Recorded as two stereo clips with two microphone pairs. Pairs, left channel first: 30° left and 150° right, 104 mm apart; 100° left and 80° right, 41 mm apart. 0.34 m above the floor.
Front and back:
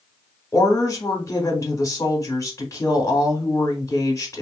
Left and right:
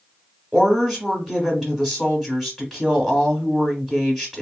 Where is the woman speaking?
5° left, 1.1 m.